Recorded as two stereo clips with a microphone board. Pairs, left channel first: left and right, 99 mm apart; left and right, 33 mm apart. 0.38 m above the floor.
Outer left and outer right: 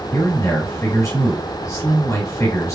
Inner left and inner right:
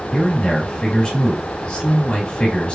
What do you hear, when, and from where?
0.1 s a man speaking: 30° left (ahead or behind), 1.5 m